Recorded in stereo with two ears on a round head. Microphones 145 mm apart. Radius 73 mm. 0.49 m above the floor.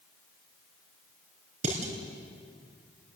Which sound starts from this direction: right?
Dishes clattering, at 1.6 s.